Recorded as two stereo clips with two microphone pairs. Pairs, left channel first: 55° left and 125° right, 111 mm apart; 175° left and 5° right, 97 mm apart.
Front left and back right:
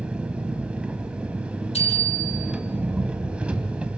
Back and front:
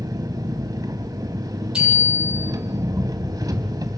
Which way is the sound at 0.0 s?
45° right.